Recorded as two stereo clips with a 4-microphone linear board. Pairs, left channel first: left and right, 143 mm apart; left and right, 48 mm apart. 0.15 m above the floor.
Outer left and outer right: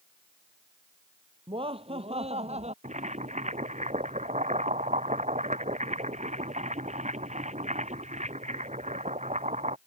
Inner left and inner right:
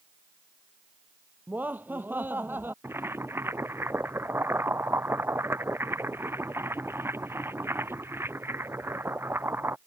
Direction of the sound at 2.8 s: 50° right (ahead or behind).